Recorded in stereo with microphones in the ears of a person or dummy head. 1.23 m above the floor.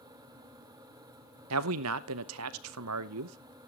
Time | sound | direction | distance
1.5 | a man speaking | 85° right | 0.8 m